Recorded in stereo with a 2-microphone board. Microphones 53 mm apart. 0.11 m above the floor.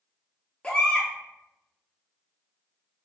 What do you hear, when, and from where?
0.6 s a baby crying: 25° left (ahead or behind), 0.7 m